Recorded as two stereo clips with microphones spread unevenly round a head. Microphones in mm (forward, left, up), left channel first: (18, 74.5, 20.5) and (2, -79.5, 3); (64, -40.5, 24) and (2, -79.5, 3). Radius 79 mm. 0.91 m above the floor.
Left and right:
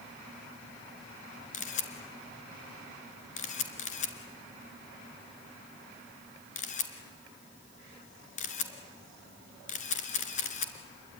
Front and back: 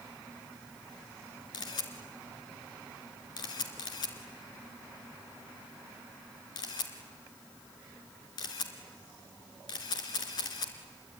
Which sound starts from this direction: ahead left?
A camera shutter, at 1.5 s.